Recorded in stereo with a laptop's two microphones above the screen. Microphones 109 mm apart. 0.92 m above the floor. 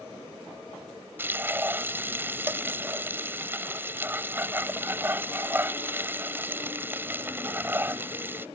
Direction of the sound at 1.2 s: 20° right (ahead or behind).